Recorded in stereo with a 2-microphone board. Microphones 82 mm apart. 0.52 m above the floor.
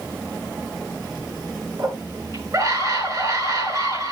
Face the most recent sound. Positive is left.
turn(degrees=-45)  # may be behind; listen again after turning